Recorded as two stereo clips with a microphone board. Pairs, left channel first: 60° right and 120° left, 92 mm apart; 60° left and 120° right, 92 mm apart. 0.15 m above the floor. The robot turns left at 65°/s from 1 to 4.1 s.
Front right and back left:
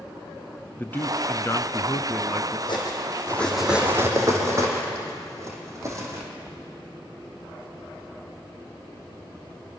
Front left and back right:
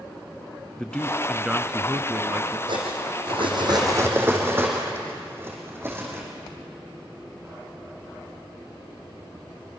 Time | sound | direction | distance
0.8 | a man speaking | 10° right | 1.2 m
2.7 | cutlery clinking | 90° right | 4 m